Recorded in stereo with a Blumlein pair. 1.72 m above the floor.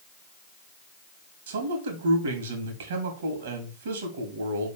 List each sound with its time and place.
1.5 s a man speaking: 60° right, 2 m